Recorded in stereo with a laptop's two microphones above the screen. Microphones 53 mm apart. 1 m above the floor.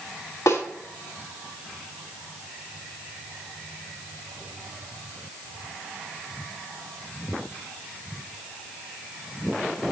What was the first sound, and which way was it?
A snare drum, 75° left (ahead or behind).